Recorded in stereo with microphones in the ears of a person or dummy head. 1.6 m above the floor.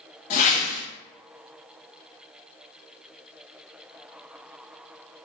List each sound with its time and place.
0.3 s a whoosh: 40° left (ahead or behind), 0.6 m